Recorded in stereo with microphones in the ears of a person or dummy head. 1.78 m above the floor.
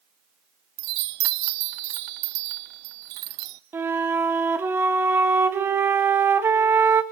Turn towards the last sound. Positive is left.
turn(degrees=-10)  # may be behind; listen again after turning